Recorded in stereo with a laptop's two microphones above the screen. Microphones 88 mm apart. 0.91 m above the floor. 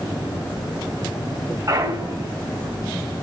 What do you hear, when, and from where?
1.7 s a clunk: 45° right (ahead or behind), 2.5 m